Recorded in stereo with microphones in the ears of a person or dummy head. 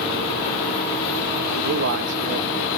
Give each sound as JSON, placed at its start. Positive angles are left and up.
{"t": 1.6, "sound": "a man speaking", "side_deg": -55, "distance_m": 1.2}